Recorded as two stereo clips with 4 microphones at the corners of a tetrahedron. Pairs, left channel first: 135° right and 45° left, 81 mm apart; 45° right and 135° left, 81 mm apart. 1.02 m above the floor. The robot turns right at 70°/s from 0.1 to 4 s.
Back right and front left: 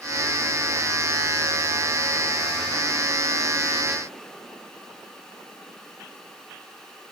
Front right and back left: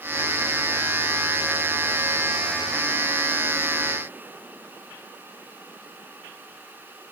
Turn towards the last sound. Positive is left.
No sound to turn to.